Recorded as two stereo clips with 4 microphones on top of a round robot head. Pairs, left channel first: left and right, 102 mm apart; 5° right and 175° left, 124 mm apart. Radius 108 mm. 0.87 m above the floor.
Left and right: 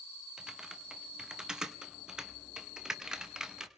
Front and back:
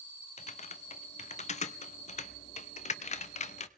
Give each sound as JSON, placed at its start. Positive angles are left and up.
{"t": 0.4, "sound": "typing on a keyboard", "azimuth_deg": -5, "distance_m": 0.9}